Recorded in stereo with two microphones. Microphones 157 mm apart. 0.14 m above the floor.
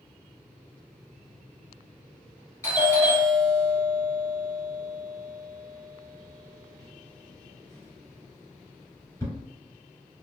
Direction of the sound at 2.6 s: 15° left (ahead or behind).